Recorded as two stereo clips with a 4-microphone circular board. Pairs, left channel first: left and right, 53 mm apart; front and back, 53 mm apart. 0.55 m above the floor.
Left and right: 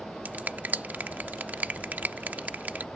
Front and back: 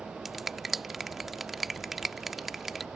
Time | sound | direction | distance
0.2 | a finger snap | 100° right | ?